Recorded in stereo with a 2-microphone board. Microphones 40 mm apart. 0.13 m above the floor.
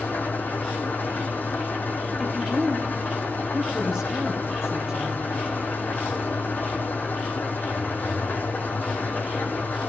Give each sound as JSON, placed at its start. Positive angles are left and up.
{"t": 0.0, "sound": "an engine running", "side_deg": 55, "distance_m": 1.9}
{"t": 2.2, "sound": "a woman speaking", "side_deg": -15, "distance_m": 4.0}